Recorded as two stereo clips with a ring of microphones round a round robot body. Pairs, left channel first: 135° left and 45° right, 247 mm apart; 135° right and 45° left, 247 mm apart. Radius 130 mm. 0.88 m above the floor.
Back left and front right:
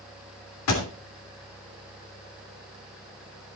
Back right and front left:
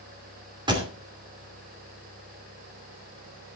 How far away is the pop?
About 3 m.